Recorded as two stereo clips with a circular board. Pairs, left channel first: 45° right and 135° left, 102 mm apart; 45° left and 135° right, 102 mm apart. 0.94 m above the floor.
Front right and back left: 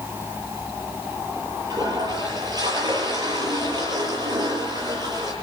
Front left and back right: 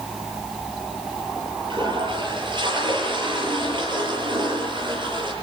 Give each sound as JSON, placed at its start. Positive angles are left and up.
{"t": 1.7, "sound": "a toilet flushing", "azimuth_deg": -175, "distance_m": 8.5}